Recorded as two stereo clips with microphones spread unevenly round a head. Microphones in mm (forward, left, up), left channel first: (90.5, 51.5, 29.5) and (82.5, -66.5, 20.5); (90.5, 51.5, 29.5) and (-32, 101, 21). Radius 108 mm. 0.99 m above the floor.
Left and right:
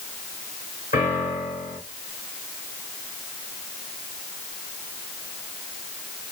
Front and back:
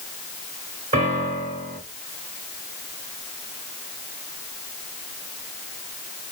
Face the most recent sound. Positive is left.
turn(degrees=135)